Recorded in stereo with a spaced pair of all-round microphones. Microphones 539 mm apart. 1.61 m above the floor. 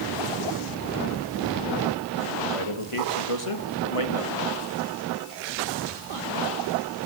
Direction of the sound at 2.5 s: 60° left (ahead or behind).